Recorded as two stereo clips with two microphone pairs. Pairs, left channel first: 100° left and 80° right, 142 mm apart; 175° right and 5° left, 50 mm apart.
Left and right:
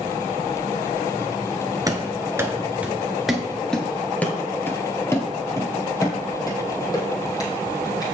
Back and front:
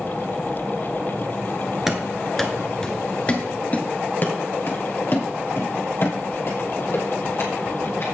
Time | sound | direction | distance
1.9 | running footsteps | 65° right | 1.5 m